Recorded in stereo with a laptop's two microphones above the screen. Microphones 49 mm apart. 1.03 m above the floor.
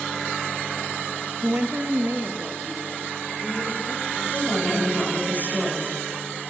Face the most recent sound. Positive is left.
turn(degrees=35)  # may be behind; listen again after turning